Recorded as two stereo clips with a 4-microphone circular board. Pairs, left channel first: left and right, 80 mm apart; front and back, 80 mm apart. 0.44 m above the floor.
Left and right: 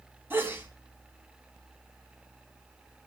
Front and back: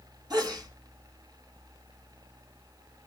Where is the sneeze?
150° right, 4 m.